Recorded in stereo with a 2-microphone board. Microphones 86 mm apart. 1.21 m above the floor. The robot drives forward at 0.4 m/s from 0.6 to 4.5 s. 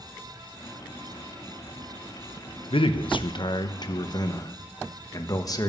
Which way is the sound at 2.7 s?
80° left.